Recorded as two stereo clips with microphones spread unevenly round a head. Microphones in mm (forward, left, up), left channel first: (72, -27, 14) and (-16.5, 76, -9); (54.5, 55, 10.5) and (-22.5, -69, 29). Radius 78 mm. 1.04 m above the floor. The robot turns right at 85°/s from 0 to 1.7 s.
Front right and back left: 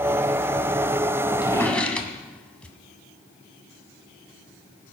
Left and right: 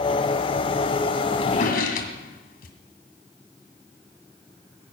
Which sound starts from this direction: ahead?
A drawer, at 1.4 s.